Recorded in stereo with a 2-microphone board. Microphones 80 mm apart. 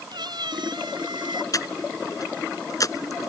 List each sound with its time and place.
0.1 s a cat meowing: 60° right (ahead or behind); by 1.4 s 70° right (ahead or behind)
1.5 s breathing: 45° left (ahead or behind)